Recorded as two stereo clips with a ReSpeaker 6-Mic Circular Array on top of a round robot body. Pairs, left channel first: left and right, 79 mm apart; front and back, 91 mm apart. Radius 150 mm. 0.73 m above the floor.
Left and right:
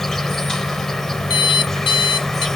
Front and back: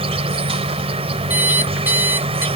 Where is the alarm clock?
110° left.